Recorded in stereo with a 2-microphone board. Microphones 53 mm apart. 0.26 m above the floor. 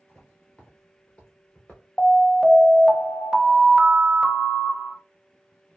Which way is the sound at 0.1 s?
10° left (ahead or behind).